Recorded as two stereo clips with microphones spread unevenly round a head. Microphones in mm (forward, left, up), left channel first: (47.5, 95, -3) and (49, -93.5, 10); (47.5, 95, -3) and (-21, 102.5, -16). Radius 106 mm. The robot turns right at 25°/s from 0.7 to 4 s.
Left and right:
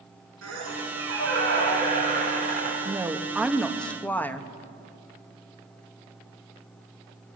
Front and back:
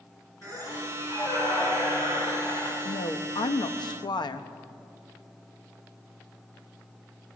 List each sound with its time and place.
0.4 s a squeak: 80° right, 7 m; by 2.8 s 30° right, 7 m
2.9 s a woman speaking: 20° right, 1.3 m; by 4.5 s 10° left, 1.3 m